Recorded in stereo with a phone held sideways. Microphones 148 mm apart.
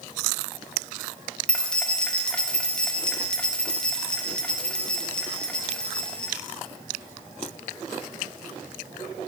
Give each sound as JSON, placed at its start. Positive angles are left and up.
{"t": 1.5, "sound": "keys jangling", "side_deg": 5, "distance_m": 0.5}